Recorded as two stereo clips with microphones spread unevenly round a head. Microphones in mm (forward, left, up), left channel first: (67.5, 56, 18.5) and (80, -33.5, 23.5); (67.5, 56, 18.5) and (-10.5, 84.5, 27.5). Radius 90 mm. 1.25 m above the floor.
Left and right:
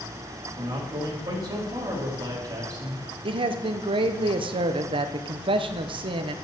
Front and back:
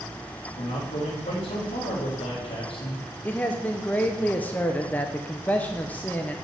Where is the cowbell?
I don't hear a cowbell.